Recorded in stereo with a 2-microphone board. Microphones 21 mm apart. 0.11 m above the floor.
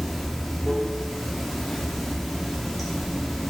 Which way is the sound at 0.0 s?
5° left (ahead or behind).